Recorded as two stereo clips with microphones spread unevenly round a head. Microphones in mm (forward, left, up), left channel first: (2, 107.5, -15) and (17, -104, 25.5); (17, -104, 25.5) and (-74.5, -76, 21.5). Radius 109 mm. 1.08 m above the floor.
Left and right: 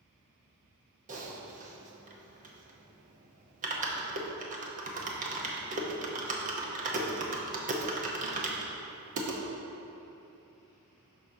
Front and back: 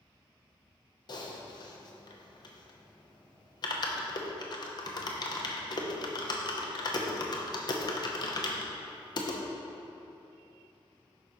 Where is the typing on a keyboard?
35° right, 0.8 m.